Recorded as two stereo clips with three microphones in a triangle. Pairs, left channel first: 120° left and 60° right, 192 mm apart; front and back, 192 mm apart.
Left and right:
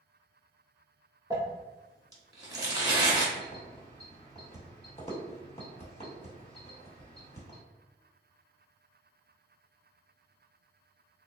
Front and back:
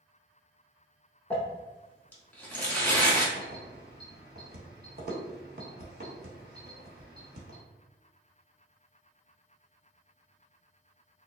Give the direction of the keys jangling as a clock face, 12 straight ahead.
6 o'clock.